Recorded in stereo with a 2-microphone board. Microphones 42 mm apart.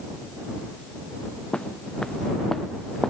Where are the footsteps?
20° left (ahead or behind); by 3.1 s 10° left (ahead or behind).